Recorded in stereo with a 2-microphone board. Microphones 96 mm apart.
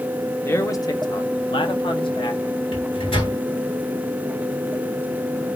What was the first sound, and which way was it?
A man speaking, 30° left (ahead or behind).